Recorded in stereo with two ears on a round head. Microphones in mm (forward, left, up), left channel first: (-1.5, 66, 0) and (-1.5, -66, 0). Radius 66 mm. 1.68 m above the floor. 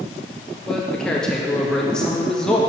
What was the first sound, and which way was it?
A man speaking, 5° left (ahead or behind).